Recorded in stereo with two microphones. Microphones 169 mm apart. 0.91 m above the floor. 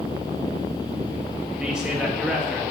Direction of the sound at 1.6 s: 5° right (ahead or behind).